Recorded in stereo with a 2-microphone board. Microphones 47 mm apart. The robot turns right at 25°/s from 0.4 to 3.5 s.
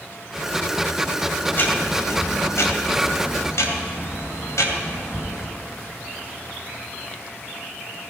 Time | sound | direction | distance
1.5 | ticking | 45° left | 2 m